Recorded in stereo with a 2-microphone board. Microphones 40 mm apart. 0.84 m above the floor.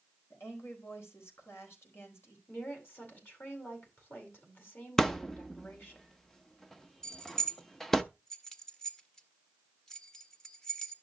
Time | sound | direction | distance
0.3 | a woman speaking | 80° left | 4 m
2.5 | a woman speaking | 60° left (ahead or behind) | 4.5 m
5.0 | a thud | 10° left (ahead or behind) | 0.7 m
7.0 | keys jangling | 15° left (ahead or behind) | 1.2 m